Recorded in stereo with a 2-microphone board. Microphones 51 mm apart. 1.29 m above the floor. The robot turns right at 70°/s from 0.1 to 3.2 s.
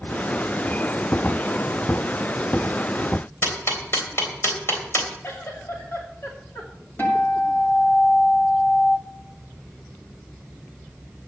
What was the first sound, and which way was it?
Ticking, 50° left (ahead or behind).